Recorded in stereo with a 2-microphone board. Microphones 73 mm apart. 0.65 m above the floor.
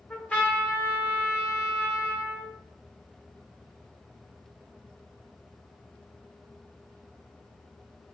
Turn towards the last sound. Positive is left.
turn(degrees=25)  # may be behind; listen again after turning